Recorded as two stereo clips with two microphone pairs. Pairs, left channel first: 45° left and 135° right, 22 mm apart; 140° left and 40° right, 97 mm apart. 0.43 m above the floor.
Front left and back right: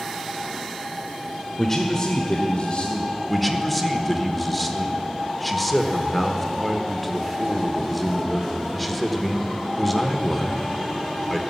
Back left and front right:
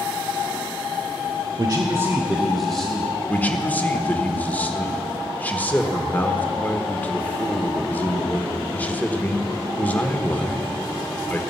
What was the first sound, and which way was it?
A man speaking, 25° right.